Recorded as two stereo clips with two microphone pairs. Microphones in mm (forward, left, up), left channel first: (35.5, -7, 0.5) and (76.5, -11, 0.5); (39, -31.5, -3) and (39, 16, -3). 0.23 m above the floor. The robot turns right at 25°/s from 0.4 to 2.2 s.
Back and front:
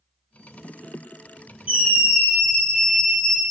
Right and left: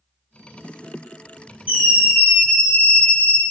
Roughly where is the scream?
Ahead left.